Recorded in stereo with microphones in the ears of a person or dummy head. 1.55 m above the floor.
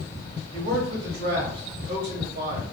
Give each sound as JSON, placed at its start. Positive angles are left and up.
{"t": 0.5, "sound": "a man speaking", "side_deg": -70, "distance_m": 1.3}